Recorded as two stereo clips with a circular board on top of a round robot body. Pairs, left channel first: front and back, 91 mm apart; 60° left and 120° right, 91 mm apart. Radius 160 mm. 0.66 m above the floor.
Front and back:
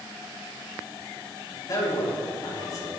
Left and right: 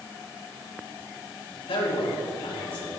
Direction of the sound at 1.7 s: 45° left.